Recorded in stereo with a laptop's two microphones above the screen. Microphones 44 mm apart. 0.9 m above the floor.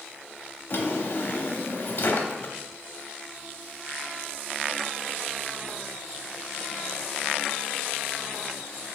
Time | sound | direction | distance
0.7 | a drawer | 50° left (ahead or behind) | 0.6 m